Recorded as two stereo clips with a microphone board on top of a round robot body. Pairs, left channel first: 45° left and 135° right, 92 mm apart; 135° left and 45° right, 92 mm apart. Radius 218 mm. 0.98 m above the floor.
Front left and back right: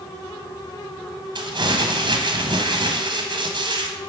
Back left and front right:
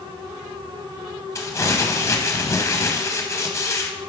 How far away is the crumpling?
About 0.9 m.